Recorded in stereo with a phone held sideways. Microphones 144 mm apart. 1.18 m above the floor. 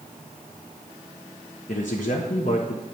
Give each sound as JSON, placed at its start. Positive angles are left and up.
{"t": 1.7, "sound": "a man speaking", "side_deg": 60, "distance_m": 1.0}